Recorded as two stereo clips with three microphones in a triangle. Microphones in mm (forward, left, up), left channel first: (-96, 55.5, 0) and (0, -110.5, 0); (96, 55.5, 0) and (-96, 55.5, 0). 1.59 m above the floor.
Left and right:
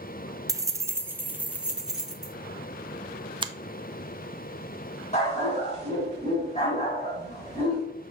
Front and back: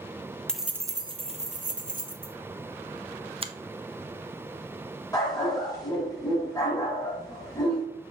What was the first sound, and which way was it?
Keys jangling, 75° right.